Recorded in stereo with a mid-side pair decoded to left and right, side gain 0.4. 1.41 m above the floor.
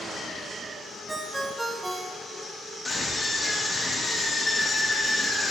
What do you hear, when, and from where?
1.1 s a ringtone: 25° right, 1.4 m
2.9 s a scream: 15° left, 3.5 m